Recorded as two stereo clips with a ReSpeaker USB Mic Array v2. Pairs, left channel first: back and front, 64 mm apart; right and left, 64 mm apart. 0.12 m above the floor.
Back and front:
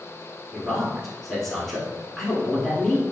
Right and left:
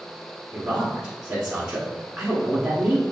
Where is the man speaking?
110° left, 1.1 m.